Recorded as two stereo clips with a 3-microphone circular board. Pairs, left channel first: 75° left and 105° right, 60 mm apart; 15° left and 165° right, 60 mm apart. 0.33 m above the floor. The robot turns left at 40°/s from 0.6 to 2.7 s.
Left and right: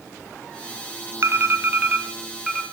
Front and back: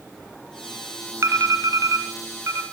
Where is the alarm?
140° right, 2.5 m; by 2.6 s 160° left, 2.5 m.